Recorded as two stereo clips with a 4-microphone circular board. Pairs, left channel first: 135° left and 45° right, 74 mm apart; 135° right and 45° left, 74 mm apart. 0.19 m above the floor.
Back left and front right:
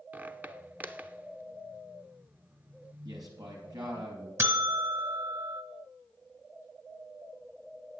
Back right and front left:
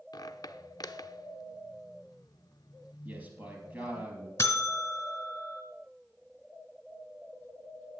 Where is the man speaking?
20° right, 4 m.